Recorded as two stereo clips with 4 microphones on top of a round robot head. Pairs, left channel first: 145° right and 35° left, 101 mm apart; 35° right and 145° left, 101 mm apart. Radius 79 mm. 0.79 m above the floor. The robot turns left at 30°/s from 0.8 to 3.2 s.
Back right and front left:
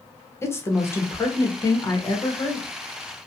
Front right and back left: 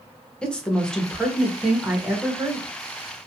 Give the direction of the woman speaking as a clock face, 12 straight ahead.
4 o'clock.